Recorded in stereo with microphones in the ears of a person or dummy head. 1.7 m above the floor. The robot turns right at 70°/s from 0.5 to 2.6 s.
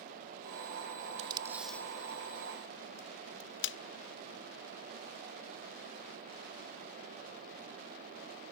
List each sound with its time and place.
1.2 s tape being pulled: 35° right (ahead or behind); by 3.8 s 65° left (ahead or behind)